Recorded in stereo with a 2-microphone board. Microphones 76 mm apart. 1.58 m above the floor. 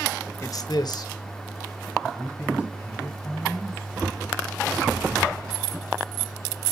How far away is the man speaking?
About 0.8 m.